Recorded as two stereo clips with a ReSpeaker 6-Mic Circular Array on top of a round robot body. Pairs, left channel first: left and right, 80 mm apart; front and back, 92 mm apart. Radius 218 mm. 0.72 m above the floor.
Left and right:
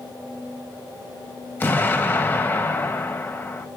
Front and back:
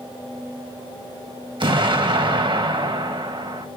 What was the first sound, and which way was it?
An explosion, 155° left.